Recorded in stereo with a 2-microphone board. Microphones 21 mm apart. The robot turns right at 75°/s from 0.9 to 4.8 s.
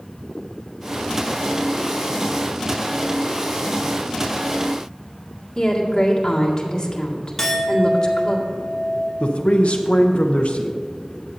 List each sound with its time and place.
5.5 s a woman speaking: 30° left (ahead or behind), 2 m
7.4 s a clink: 20° left (ahead or behind), 1.4 m
9.2 s a man speaking: 60° left (ahead or behind), 0.8 m